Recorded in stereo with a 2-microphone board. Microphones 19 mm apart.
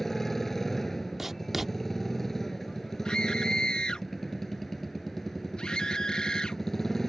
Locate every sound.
0.0 s a motorcycle: 15° left (ahead or behind)
1.2 s writing: 15° right (ahead or behind)
3.0 s a scream: 55° left (ahead or behind)